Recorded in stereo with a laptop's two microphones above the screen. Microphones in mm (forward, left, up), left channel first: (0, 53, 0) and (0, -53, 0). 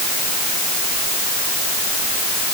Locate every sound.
Only background noise.